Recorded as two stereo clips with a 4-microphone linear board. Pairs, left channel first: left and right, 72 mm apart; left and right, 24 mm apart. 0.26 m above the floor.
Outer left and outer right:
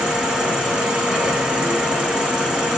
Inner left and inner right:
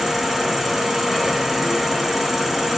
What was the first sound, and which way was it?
An insect, 15° right (ahead or behind).